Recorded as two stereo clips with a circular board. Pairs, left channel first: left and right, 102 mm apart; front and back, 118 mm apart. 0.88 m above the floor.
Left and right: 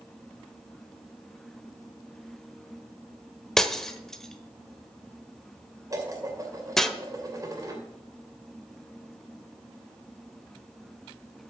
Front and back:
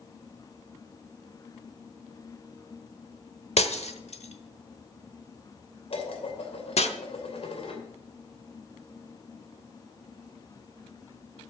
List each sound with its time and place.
3.6 s breaking glass: 5° left, 1.0 m
5.9 s dishes clattering: 35° right, 2.5 m